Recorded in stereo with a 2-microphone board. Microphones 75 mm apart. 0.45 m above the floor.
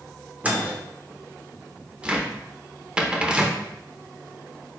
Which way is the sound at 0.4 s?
20° right (ahead or behind).